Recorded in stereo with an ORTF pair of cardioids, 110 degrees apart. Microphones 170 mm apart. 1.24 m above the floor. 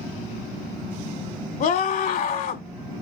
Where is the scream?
60° left, 1.9 m.